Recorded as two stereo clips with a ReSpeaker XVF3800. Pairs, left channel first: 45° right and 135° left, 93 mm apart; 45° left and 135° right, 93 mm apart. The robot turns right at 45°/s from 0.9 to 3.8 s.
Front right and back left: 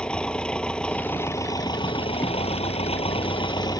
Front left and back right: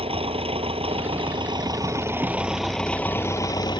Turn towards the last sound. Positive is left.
turn(degrees=5)